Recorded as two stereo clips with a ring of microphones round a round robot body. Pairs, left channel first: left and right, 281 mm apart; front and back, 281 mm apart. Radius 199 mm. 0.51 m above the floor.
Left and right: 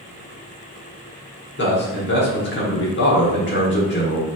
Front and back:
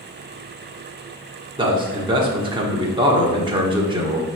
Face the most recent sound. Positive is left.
turn(degrees=115)